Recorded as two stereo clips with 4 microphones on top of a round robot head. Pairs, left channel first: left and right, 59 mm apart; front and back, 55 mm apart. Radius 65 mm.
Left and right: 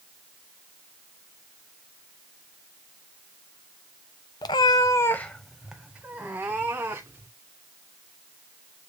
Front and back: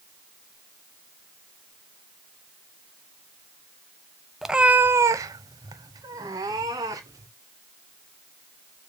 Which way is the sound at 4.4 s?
95° left.